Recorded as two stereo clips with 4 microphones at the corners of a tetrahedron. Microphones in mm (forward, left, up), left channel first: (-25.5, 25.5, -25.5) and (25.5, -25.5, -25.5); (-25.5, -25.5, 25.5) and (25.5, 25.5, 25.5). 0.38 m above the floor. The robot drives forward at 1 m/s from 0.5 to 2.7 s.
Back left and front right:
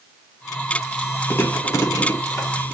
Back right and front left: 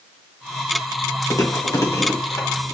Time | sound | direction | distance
1.3 | chewing | 175° right | 1.5 m